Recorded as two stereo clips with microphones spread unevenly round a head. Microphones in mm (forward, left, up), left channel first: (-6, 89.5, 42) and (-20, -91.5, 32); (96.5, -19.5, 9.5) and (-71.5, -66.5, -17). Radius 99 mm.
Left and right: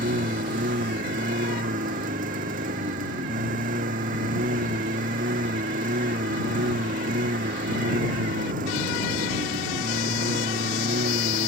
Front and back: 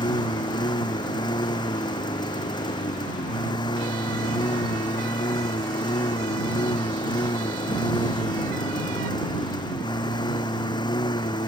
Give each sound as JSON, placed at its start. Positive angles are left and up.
{"t": 0.0, "sound": "a lawn mower", "azimuth_deg": -45}